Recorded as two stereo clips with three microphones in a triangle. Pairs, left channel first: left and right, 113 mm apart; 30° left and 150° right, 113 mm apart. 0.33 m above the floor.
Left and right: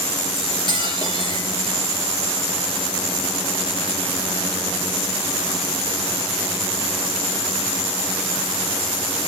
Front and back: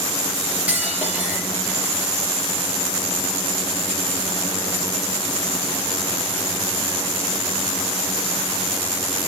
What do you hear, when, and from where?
0.4 s cutlery clinking: 135° left, 4 m